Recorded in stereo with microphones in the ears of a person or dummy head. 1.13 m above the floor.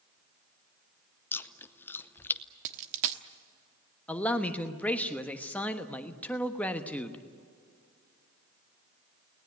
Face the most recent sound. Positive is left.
turn(degrees=10)  # may be behind; listen again after turning